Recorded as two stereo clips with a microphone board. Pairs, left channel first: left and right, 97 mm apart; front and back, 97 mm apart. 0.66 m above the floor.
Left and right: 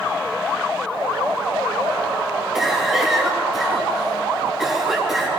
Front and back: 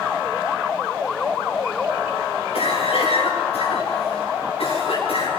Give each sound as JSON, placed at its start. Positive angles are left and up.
{"t": 2.5, "sound": "a cough", "azimuth_deg": -5, "distance_m": 7.5}